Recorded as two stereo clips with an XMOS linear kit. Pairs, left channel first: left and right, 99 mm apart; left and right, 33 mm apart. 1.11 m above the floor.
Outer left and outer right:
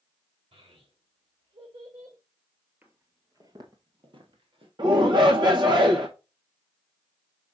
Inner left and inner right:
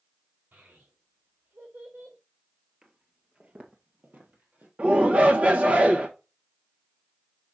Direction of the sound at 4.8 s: 50° right (ahead or behind).